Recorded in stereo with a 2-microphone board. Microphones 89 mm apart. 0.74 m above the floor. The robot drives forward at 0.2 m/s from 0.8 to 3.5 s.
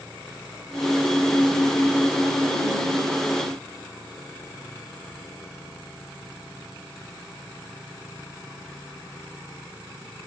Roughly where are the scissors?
I don't hear scissors.